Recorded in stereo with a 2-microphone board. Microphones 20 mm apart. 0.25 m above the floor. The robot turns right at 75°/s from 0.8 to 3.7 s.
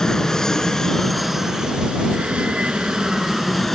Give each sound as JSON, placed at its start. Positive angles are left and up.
{"t": 0.0, "sound": "an aircraft", "azimuth_deg": 160}